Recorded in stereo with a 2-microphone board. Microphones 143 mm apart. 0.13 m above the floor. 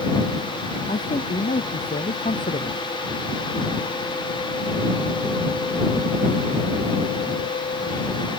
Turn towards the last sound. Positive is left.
turn(degrees=65)  # may be behind; listen again after turning